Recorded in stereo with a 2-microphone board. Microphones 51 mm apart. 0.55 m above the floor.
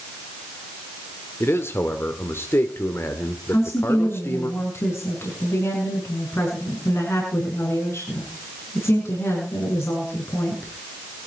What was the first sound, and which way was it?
A man speaking, 55° left (ahead or behind).